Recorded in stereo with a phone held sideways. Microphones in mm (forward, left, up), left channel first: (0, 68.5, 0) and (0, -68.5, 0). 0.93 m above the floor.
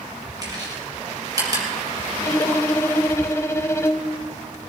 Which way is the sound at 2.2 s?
20° left (ahead or behind).